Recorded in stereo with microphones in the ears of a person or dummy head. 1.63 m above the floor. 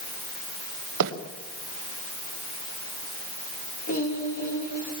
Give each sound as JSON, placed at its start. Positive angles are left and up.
{"t": 1.0, "sound": "a bird", "side_deg": -70, "distance_m": 2.5}
{"t": 3.9, "sound": "singing", "side_deg": 45, "distance_m": 3.0}